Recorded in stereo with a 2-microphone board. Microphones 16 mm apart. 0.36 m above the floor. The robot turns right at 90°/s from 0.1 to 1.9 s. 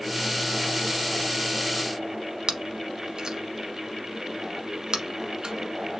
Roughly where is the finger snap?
No finger snap in this recording.